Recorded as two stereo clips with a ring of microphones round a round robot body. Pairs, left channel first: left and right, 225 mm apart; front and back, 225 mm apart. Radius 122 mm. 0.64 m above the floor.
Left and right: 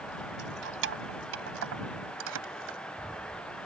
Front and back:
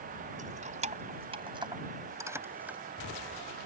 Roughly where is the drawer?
No drawer in this recording.